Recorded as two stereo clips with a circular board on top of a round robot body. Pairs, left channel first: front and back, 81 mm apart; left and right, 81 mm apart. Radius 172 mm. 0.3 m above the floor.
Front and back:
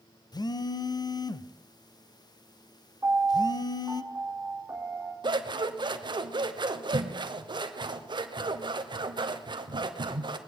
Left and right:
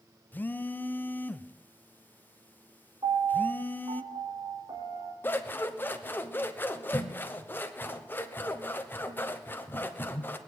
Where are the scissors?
155° left, 1.0 m.